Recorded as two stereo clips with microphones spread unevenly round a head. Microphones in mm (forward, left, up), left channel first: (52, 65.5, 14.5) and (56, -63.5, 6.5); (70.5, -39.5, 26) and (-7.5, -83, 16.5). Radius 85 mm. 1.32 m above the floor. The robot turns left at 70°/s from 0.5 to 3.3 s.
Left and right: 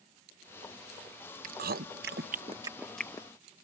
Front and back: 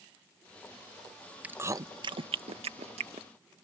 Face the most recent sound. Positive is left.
turn(degrees=155)